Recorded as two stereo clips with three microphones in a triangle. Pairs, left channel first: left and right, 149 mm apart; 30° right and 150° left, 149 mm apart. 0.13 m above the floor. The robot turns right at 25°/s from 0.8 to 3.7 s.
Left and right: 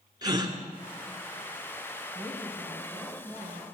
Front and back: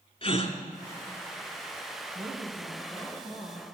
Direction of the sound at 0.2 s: 45° right.